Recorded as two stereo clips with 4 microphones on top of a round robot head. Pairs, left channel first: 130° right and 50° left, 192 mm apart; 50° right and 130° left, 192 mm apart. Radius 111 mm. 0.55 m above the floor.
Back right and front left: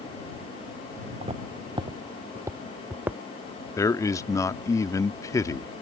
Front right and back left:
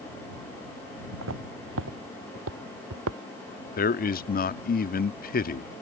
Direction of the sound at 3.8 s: 60° right.